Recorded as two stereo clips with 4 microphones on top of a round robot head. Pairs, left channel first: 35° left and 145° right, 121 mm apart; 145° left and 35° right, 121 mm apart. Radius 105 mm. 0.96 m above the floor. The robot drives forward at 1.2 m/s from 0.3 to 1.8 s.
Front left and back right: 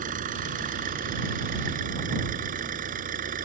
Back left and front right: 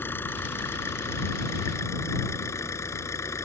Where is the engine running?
140° right; by 3.5 s 145° right.